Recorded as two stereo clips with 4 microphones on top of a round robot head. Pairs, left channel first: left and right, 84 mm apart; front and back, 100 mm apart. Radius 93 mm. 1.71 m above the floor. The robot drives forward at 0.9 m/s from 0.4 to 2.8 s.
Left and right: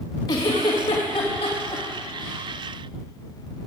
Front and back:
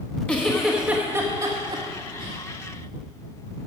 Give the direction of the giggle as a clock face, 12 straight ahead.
9 o'clock.